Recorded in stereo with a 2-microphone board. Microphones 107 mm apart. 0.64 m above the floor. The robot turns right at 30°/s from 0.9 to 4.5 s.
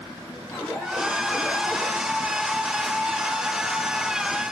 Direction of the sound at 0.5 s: 170° left.